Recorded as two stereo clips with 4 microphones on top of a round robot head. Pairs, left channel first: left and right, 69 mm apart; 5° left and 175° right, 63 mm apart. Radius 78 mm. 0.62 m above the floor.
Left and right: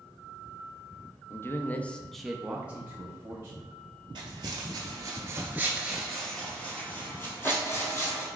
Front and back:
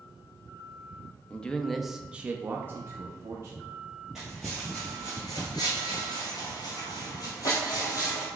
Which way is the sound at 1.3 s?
65° left.